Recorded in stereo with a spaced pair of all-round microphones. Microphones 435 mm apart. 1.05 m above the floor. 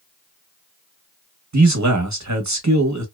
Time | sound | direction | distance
1.5 | a man speaking | 35° right (ahead or behind) | 0.9 m